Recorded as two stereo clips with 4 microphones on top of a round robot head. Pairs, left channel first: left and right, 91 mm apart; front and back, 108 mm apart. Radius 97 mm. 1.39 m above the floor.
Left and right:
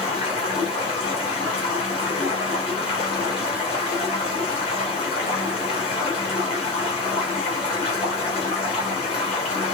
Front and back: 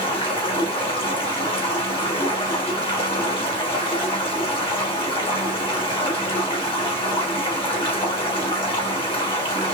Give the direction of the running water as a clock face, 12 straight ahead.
11 o'clock.